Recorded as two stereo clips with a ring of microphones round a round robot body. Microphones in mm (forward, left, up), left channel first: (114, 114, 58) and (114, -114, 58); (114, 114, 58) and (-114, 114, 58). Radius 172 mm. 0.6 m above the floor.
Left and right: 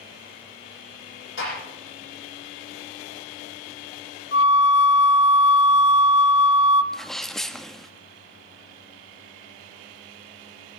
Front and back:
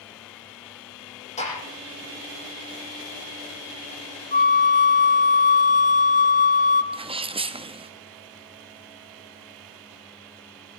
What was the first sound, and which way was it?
A gunshot, 60° left.